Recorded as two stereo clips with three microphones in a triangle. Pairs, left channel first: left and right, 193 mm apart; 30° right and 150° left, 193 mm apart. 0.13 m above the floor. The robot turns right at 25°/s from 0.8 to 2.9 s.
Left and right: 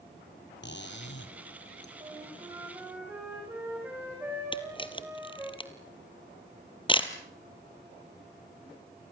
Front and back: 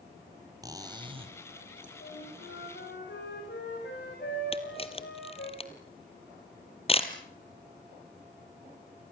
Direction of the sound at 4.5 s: 25° left.